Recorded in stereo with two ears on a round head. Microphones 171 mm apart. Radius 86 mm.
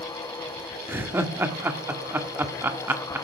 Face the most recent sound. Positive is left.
turn(degrees=-10)  # may be behind; listen again after turning